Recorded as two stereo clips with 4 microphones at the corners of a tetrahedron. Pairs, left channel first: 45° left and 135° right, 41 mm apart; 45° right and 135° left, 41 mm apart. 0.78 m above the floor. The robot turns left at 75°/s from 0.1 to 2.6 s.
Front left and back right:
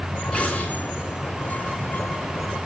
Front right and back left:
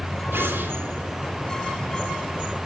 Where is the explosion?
115° left, 3.5 m; by 1.3 s 40° left, 3.5 m.